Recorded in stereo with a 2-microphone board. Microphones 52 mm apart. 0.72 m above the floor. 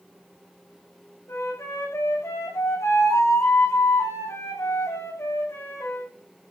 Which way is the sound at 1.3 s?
65° left (ahead or behind).